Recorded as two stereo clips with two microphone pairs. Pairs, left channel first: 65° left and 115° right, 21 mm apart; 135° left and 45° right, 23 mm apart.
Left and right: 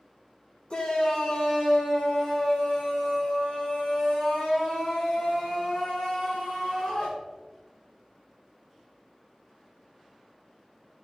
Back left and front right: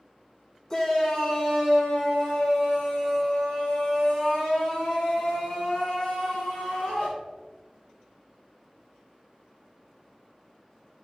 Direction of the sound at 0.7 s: 75° left.